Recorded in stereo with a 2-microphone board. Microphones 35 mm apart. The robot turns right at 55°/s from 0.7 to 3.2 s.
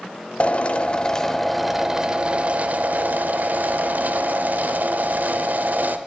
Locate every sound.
0.4 s a drill: 130° left, 0.7 m; by 6.0 s 90° right, 0.7 m